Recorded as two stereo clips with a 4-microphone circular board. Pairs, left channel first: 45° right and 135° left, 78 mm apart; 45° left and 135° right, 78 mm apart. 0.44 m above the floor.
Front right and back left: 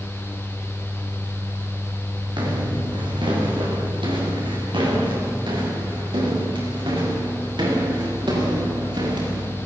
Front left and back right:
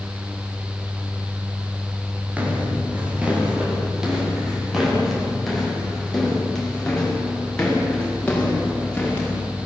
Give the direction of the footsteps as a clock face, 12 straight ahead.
7 o'clock.